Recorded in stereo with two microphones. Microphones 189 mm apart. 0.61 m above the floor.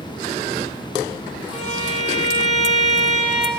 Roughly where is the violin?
Left.